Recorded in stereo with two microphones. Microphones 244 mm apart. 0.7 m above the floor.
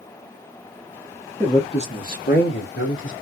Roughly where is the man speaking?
Centre.